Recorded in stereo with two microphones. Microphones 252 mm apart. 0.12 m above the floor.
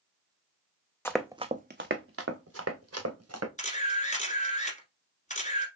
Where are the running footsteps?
10° left (ahead or behind), 0.6 m; by 3.5 s 75° right (ahead or behind), 2.0 m.